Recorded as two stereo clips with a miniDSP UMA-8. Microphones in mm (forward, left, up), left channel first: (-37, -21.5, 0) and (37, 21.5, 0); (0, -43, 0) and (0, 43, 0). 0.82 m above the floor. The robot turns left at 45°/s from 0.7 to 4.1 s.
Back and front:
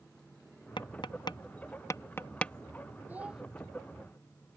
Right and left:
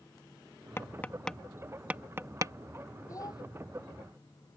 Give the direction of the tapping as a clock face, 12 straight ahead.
5 o'clock.